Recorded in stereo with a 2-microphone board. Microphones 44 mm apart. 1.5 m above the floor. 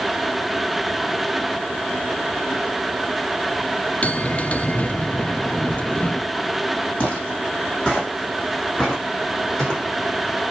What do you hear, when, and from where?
4.0 s a bell: 35° left (ahead or behind), 0.5 m
7.0 s footsteps: 25° left (ahead or behind), 3.5 m; by 9.8 s 20° left (ahead or behind), 5 m